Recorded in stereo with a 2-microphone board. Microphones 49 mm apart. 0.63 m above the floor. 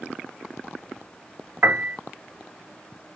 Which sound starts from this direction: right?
A piano, at 1.6 s.